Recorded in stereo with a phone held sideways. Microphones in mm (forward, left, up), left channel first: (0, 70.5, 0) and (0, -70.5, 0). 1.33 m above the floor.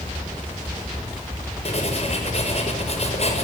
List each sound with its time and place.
1.6 s writing: 50° left (ahead or behind), 6 m